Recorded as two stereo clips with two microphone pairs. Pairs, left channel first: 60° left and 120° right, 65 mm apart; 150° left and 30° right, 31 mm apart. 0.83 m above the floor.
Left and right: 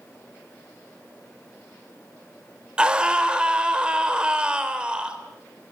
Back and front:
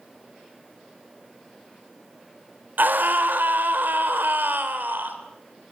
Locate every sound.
2.8 s a scream: 40° right, 3.5 m